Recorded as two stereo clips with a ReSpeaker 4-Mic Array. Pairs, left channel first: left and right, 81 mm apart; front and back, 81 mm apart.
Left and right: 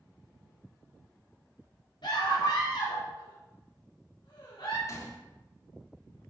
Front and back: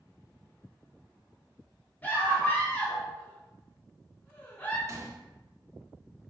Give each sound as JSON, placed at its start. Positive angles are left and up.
{"t": 2.0, "sound": "a scream", "azimuth_deg": 70, "distance_m": 4.5}
{"t": 4.9, "sound": "a gunshot", "azimuth_deg": 135, "distance_m": 1.4}